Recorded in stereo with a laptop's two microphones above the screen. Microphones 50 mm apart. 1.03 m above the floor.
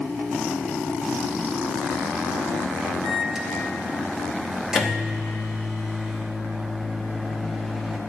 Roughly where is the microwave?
Centre.